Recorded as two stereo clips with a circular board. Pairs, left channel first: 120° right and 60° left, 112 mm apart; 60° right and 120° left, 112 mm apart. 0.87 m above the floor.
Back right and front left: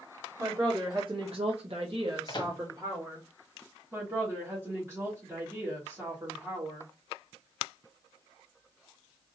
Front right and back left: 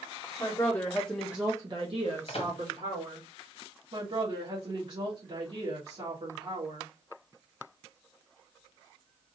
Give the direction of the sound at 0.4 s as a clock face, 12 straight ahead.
12 o'clock.